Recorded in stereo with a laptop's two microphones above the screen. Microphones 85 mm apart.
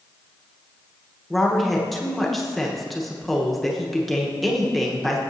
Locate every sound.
1.3 s a woman speaking: centre (ahead or behind), 1.0 m